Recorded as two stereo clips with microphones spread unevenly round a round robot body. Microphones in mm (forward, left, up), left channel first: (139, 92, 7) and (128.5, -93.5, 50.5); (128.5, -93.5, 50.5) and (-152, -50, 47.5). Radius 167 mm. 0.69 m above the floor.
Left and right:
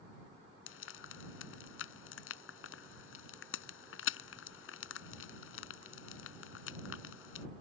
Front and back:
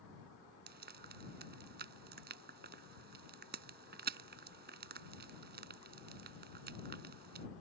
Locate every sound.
0.7 s frying: 110° left